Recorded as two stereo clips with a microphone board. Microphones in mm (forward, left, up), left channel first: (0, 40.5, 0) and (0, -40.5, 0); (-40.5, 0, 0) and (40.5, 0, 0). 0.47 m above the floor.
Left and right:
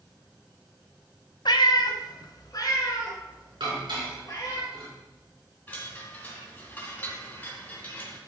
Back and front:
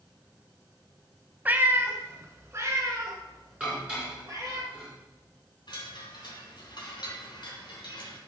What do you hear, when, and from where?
1.4 s a cat meowing: 70° left, 0.5 m; by 4.6 s 50° left, 3 m
3.6 s dishes clattering: 75° right, 4 m
5.7 s a chime: 155° left, 2.5 m